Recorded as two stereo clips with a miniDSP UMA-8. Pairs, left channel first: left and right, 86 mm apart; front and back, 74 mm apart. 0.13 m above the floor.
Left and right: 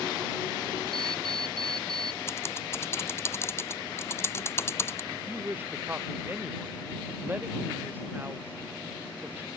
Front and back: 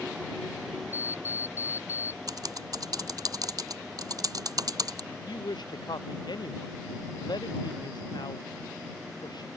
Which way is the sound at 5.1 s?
20° right.